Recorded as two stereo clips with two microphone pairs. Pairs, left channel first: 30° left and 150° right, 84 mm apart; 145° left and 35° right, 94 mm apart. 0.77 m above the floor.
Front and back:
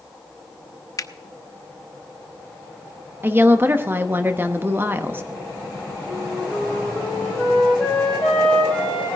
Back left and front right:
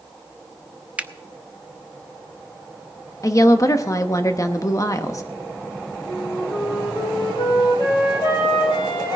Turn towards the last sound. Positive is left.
turn(degrees=110)